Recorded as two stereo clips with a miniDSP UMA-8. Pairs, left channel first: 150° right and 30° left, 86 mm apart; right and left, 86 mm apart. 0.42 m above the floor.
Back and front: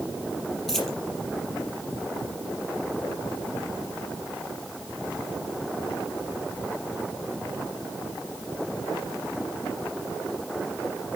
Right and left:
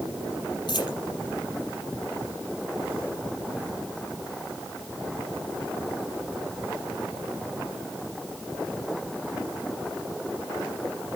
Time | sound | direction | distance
0.7 | a dropped coin | 65° right | 5 m